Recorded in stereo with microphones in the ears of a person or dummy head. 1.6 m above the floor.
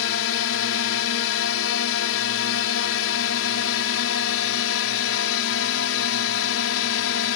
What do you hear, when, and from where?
0.0 s a drone: 75° left (ahead or behind)